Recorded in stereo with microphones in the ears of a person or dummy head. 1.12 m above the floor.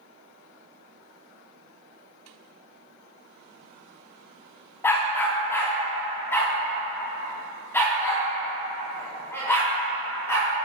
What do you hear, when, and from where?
4.8 s a dog barking: 10° left (ahead or behind), 1.1 m; by 10.5 s 5° left (ahead or behind), 5 m